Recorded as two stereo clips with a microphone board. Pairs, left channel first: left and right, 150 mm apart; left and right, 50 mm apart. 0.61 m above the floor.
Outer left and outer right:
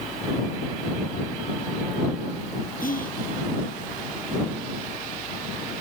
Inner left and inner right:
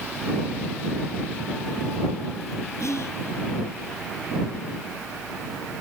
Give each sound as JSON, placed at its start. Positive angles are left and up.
{"t": 2.8, "sound": "whispering", "side_deg": 70}